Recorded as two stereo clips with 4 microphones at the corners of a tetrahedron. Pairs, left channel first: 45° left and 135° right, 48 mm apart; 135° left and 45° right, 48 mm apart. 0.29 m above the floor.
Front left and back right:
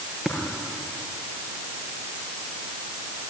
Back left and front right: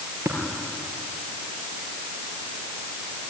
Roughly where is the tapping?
Ahead right.